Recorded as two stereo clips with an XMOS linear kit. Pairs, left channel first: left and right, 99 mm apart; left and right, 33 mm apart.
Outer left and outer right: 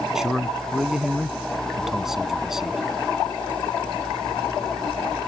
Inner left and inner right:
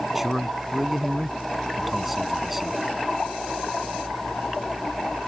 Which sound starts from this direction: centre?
A man speaking, at 0.1 s.